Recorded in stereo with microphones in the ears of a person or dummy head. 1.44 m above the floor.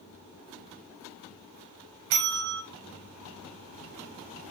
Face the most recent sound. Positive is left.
turn(degrees=-70)  # may be behind; listen again after turning